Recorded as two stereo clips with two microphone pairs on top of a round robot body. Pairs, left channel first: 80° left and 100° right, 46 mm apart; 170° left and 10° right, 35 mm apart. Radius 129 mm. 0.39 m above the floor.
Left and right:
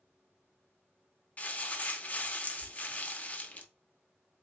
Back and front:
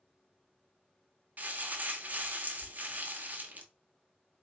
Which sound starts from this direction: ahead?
Crumpling, at 1.4 s.